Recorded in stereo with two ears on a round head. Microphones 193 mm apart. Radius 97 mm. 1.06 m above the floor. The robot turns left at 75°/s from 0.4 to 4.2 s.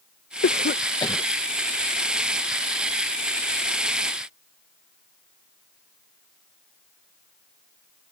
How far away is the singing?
I don't hear singing.